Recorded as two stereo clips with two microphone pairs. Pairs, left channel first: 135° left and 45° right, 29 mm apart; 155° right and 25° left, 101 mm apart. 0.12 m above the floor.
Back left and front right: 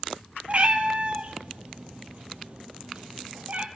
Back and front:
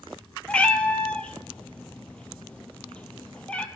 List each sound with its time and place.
0.5 s a cat meowing: 85° right, 0.5 m